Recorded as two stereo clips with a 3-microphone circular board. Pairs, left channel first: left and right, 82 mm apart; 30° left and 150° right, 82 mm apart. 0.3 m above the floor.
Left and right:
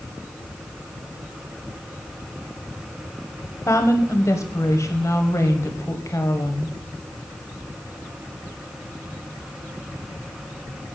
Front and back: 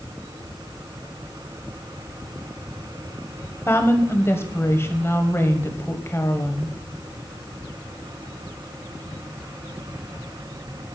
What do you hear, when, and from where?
3.7 s a woman speaking: 70° left, 1.2 m